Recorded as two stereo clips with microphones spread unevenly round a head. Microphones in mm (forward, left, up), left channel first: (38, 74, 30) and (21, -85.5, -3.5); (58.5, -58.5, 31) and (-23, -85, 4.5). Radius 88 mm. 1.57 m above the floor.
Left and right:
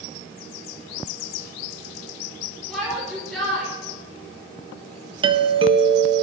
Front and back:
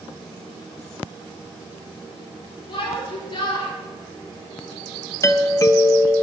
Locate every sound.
2.7 s a shout: straight ahead, 4.5 m
5.2 s a doorbell: 40° right, 1.5 m